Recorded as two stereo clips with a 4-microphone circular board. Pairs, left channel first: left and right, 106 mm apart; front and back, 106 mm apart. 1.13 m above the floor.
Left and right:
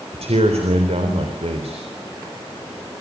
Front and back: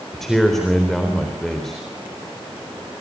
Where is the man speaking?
85° right, 3.5 m.